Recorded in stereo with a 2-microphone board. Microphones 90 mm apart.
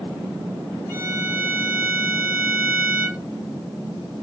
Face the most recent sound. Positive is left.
turn(degrees=25)  # may be behind; listen again after turning